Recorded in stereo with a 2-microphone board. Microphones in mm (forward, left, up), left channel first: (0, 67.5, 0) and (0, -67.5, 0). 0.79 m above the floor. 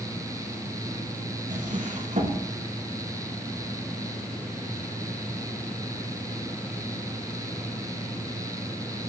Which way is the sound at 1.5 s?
70° right (ahead or behind).